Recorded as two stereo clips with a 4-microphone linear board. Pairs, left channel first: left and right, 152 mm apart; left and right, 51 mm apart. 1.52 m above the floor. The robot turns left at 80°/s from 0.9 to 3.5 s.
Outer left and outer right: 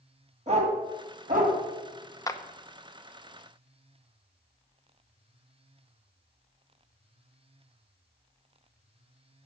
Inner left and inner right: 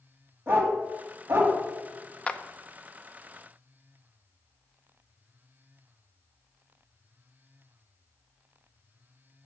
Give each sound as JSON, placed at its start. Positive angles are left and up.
{"t": 0.5, "sound": "a dog barking", "side_deg": -45, "distance_m": 2.5}
{"t": 2.3, "sound": "a clap", "side_deg": 25, "distance_m": 0.7}